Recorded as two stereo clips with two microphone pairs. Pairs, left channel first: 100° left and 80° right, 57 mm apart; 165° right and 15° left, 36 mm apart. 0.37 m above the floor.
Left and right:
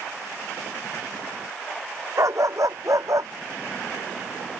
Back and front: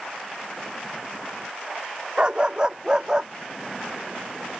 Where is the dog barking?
50° right; by 3.3 s 60° right.